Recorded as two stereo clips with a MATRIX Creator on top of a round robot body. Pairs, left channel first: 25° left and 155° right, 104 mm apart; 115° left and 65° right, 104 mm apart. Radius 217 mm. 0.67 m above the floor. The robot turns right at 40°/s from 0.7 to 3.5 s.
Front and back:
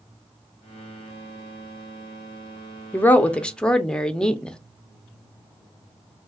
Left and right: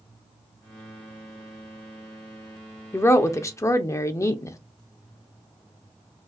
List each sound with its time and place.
2.9 s a woman speaking: 75° left, 0.8 m; by 4.6 s 95° left, 0.8 m